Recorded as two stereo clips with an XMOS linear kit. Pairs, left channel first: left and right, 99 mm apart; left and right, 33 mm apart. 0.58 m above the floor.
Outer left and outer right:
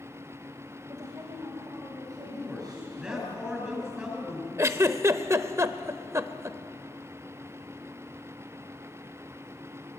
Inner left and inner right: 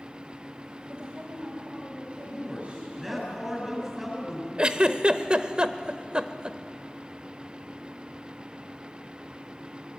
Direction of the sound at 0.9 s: 35° right (ahead or behind).